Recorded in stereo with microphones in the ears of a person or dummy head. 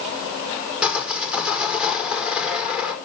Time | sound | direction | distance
0.8 | sawing | centre (ahead or behind) | 5 m